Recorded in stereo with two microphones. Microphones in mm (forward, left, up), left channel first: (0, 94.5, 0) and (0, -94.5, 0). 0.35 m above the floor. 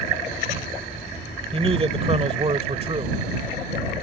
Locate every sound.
1.5 s a man speaking: 30° right (ahead or behind)